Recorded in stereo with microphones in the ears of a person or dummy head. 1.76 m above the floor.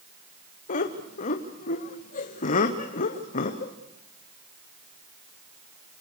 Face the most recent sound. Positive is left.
turn(degrees=45)  # may be behind; listen again after turning